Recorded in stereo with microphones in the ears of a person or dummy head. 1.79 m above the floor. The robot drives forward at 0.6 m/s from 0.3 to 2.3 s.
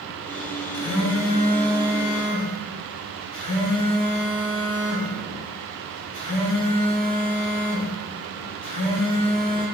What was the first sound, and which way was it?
A phone buzzing, 60° left (ahead or behind).